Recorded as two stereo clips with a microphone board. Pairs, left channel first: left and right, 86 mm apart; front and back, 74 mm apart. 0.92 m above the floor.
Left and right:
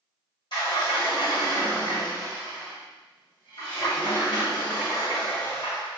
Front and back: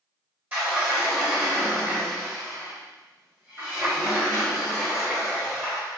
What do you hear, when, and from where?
0.5 s a sliding door: 120° left, 1.7 m